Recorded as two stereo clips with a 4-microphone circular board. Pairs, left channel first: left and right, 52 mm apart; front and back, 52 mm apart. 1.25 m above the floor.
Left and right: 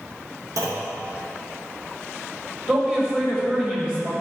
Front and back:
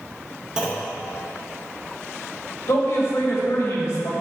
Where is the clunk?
100° right, 0.9 m.